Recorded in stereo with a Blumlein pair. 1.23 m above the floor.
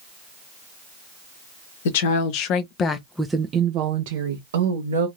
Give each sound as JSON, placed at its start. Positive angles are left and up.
{"t": 1.9, "sound": "a woman speaking", "azimuth_deg": 55, "distance_m": 0.9}